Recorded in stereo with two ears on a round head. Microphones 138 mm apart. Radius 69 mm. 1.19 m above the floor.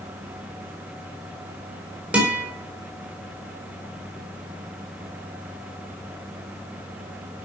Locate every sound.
2.1 s a guitar: 10° right (ahead or behind), 4 m